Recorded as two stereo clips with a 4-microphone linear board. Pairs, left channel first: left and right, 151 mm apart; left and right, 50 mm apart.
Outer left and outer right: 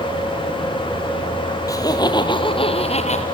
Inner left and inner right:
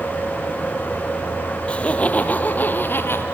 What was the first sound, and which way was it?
Laughter, 25° left (ahead or behind).